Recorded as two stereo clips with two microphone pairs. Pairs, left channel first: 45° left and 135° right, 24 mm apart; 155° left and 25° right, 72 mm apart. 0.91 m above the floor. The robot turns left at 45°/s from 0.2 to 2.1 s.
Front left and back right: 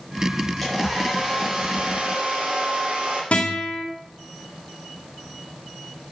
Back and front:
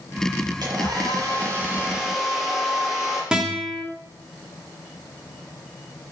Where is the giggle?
I don't hear a giggle.